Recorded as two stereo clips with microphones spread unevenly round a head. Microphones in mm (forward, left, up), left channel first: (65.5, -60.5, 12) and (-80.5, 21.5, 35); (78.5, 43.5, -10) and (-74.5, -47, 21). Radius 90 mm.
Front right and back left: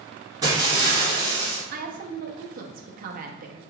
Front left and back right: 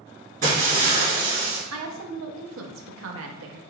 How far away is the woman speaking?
About 0.7 m.